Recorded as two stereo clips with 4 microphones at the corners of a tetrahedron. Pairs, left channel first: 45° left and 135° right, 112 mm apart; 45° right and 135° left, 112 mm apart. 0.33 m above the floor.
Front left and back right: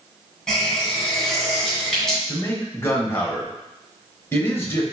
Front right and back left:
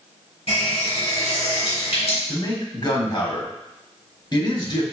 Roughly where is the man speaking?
Ahead.